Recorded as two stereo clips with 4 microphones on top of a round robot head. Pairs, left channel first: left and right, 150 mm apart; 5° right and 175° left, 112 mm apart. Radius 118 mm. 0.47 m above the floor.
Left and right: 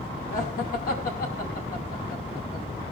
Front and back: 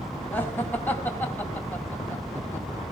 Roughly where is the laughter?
Ahead left.